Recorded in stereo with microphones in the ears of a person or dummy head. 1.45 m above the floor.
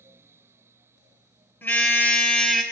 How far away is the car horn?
About 3.5 m.